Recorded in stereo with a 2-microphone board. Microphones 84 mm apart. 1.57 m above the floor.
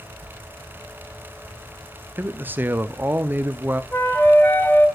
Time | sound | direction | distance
2.2 | a man speaking | 20° right (ahead or behind) | 0.5 m
3.9 | a flute | 25° left (ahead or behind) | 1.3 m